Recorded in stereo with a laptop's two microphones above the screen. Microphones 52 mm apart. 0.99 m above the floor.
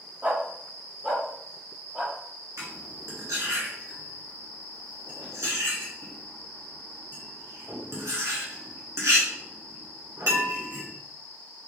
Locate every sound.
0.2 s a dog barking: 30° right (ahead or behind), 0.7 m; by 2.1 s 10° right (ahead or behind), 1.7 m
2.6 s cutlery clinking: 75° right (ahead or behind), 1.5 m